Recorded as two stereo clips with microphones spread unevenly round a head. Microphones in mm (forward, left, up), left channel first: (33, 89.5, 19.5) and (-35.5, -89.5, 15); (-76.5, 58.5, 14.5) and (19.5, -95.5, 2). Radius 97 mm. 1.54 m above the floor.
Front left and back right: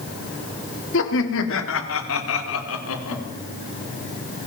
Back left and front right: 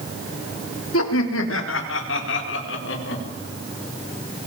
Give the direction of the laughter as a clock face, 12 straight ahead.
9 o'clock.